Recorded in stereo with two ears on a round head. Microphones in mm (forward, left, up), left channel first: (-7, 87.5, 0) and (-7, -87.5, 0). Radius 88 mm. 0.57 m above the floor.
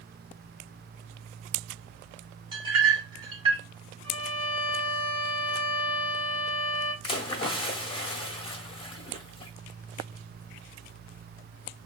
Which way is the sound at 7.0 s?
30° left (ahead or behind).